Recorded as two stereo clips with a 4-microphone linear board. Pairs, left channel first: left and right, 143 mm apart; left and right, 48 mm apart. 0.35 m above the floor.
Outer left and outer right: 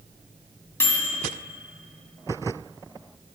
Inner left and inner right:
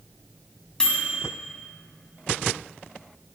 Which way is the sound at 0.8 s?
15° left (ahead or behind).